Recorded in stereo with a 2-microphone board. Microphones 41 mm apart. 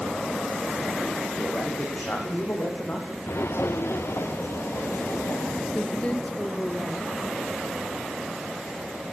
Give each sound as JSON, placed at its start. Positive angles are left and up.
{"t": 1.3, "sound": "a man speaking", "side_deg": 45, "distance_m": 8.0}
{"t": 3.3, "sound": "footsteps", "side_deg": 70, "distance_m": 0.9}
{"t": 5.7, "sound": "a woman speaking", "side_deg": 35, "distance_m": 3.0}